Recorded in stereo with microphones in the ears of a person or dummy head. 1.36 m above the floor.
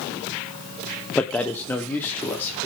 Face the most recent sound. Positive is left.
turn(degrees=15)  # may be behind; listen again after turning